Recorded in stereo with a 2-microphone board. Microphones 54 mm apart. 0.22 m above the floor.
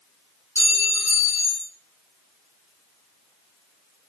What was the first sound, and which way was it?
A clink, 50° left (ahead or behind).